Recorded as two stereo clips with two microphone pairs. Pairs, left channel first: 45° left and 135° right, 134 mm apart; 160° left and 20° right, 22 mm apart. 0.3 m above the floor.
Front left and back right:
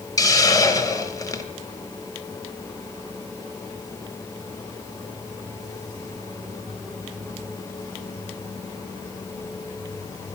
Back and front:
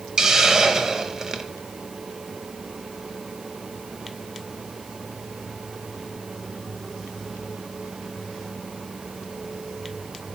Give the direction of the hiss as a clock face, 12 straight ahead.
12 o'clock.